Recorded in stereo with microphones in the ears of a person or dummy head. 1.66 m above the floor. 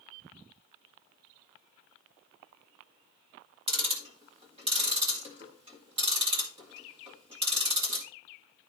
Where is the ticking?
30° right (ahead or behind), 1.9 m.